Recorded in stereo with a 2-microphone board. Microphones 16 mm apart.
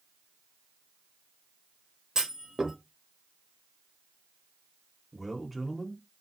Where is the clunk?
40° right (ahead or behind), 0.9 m.